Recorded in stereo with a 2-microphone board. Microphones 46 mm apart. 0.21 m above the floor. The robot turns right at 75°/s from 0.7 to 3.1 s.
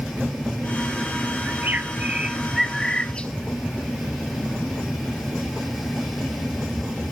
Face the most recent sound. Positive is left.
turn(degrees=35)